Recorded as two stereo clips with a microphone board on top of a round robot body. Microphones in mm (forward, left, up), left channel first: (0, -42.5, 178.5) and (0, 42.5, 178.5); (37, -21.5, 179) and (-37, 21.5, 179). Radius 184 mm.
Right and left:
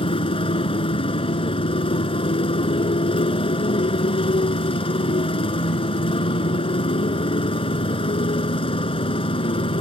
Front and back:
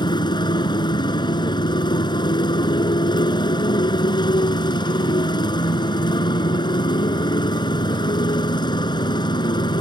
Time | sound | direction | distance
0.0 | a motorcycle | 70° right | ?